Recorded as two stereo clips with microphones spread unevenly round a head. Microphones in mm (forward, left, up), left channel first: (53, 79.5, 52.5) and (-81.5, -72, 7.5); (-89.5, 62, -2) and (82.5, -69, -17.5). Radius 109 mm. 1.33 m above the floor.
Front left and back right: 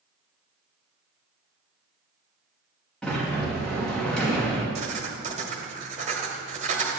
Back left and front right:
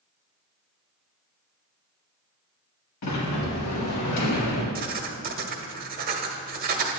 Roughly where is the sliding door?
Behind left.